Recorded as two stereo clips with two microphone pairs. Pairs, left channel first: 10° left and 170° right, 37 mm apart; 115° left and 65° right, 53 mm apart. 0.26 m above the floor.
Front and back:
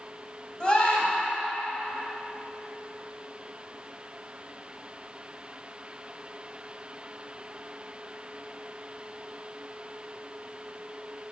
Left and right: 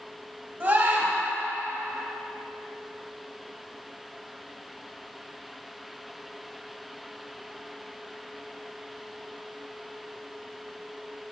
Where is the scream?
45° right, 1.7 m.